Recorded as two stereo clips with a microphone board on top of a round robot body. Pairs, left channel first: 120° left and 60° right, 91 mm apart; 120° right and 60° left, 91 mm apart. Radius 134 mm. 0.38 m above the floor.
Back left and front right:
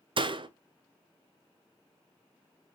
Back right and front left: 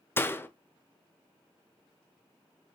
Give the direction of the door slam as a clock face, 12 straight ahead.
2 o'clock.